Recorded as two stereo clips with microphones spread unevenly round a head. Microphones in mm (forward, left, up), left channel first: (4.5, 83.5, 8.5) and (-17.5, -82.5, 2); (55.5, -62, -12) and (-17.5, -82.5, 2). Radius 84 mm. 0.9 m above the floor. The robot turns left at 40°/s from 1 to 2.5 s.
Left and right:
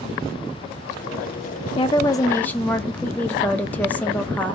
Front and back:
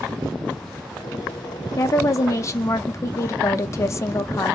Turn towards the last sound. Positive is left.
turn(degrees=0)